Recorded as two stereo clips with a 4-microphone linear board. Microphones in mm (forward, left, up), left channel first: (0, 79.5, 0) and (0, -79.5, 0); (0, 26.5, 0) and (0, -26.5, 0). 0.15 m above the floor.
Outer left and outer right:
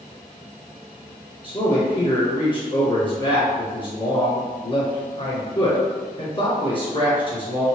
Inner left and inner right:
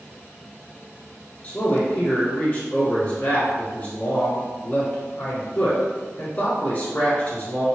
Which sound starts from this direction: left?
A man speaking, at 1.4 s.